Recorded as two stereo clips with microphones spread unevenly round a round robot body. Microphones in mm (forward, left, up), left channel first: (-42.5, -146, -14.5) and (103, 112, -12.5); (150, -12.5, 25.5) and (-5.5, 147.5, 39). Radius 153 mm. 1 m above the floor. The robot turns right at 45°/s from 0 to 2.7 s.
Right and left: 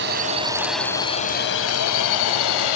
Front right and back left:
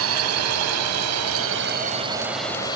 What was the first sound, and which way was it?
A drone, 120° left.